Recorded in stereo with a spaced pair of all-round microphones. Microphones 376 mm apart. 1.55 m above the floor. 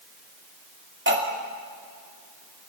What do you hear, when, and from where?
1.1 s cutlery clinking: 30° right (ahead or behind), 2.5 m